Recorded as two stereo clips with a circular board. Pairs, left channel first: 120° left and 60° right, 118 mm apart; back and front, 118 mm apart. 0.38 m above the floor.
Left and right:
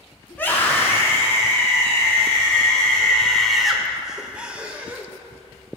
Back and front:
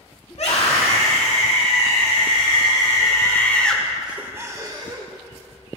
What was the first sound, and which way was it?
A scream, 165° right.